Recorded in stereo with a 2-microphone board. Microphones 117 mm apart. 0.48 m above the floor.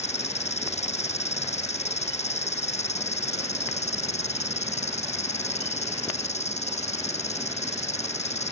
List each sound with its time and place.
0.0 s an insect: 70° left (ahead or behind)